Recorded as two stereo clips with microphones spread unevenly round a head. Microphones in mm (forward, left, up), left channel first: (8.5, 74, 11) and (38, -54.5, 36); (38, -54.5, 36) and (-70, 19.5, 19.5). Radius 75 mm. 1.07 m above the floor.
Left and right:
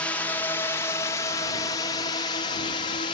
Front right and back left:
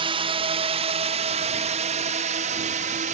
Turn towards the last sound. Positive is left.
turn(degrees=145)